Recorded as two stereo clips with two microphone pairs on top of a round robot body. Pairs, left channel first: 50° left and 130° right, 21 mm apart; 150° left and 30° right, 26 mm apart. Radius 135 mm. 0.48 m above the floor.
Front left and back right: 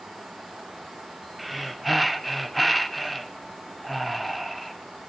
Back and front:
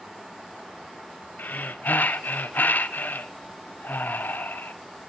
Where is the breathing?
140° left, 0.5 m.